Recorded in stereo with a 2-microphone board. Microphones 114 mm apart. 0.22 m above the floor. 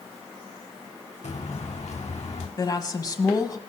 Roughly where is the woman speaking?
Left.